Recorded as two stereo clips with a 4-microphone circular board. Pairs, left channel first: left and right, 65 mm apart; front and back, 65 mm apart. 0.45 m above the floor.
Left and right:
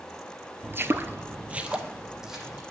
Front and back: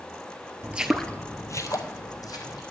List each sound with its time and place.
0.6 s footsteps: 130° right, 0.5 m; by 2.6 s 5° right, 1.5 m